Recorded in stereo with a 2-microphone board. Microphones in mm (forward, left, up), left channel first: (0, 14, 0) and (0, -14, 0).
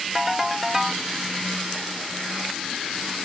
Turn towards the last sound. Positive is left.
turn(degrees=-15)  # may be behind; listen again after turning